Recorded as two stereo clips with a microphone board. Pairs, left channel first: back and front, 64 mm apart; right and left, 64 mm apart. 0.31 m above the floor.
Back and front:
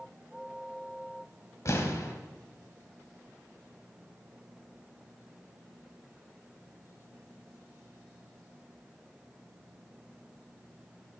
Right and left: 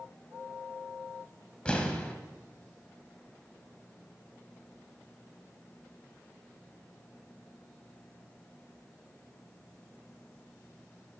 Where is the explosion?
160° right, 1.0 m.